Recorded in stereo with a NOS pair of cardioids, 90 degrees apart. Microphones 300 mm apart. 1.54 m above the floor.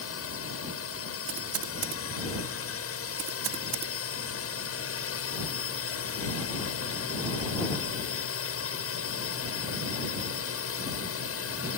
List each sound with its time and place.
0.0 s a drone: 50° left
1.3 s typing on a keyboard: 55° right